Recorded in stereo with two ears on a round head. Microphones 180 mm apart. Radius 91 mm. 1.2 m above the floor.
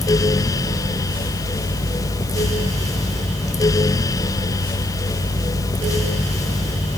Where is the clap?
I don't hear a clap.